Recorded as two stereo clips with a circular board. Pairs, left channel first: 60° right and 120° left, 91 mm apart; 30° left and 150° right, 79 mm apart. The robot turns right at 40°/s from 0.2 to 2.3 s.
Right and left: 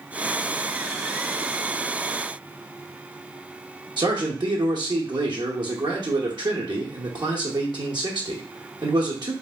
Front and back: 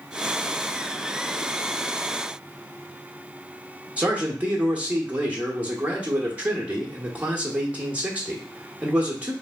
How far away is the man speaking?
About 1.1 m.